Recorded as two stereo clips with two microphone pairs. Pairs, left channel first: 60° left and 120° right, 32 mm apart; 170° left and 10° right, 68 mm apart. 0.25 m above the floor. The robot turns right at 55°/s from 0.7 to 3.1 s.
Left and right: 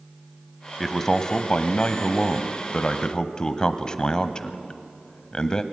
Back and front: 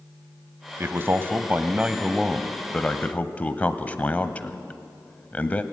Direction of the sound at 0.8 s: 15° right.